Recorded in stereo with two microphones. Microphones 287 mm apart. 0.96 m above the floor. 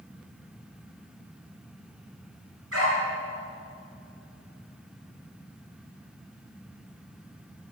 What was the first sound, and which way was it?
A dog barking, 50° right (ahead or behind).